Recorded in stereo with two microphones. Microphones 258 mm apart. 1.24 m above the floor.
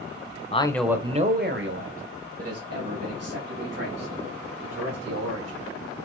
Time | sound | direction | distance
0.5 | a man speaking | 25° left (ahead or behind) | 0.6 m